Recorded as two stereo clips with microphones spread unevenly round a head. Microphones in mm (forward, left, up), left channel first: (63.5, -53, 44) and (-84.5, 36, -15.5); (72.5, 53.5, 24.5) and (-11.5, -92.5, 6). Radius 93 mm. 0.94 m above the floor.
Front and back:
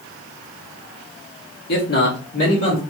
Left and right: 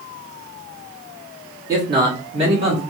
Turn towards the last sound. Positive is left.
turn(degrees=-80)